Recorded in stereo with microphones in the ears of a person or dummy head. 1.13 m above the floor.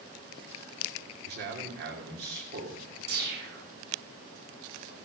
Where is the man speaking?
55° right (ahead or behind), 3 m.